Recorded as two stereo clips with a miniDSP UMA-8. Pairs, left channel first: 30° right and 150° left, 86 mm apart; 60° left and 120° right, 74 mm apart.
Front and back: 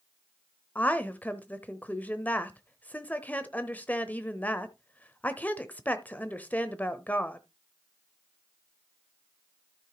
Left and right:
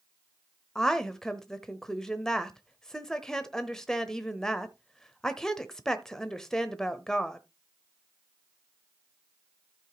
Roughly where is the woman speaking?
Ahead.